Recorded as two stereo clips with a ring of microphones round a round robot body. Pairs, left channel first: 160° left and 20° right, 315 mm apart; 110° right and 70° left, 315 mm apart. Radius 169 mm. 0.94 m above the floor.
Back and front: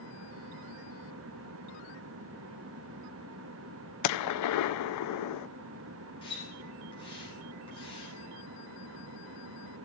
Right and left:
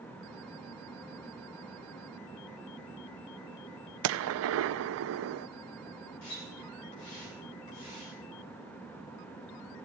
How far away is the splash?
About 8 m.